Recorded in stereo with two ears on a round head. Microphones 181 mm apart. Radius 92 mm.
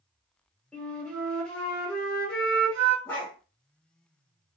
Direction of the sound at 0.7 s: 5° left (ahead or behind).